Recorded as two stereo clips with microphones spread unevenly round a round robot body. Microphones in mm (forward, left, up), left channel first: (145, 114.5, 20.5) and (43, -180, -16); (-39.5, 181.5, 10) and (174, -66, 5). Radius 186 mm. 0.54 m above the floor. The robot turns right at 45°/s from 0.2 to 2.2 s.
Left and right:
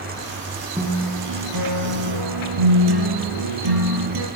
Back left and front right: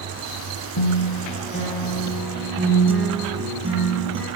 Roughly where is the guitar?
Behind.